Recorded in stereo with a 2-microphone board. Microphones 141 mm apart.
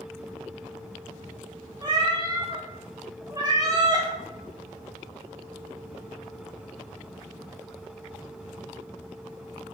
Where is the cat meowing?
30° right (ahead or behind), 0.7 m.